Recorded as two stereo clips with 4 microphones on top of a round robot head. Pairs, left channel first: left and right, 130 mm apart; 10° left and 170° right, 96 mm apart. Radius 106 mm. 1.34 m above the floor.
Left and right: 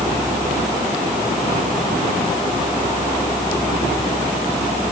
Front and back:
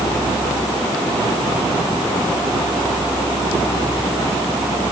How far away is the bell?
No bell in this recording.